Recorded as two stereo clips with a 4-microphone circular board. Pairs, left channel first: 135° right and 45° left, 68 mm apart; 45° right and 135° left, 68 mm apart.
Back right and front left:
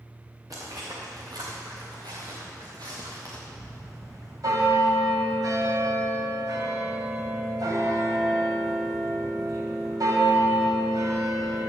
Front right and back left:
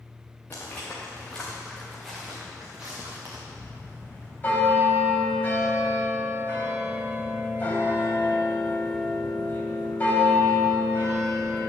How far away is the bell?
About 3 m.